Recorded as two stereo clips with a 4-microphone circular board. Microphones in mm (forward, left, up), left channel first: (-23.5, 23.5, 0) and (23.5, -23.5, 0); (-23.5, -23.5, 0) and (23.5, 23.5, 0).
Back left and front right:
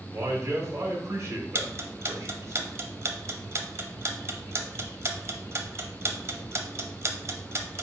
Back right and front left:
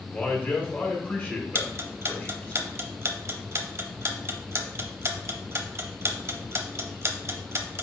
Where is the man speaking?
80° right, 1.1 m.